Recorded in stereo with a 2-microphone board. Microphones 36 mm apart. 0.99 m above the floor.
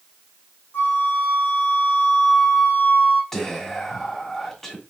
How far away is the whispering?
About 1.7 m.